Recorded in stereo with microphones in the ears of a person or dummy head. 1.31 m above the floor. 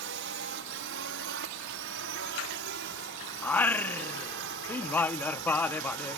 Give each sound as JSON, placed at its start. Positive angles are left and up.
{"t": 0.0, "sound": "a drone", "side_deg": -60}
{"t": 3.4, "sound": "singing", "side_deg": 5}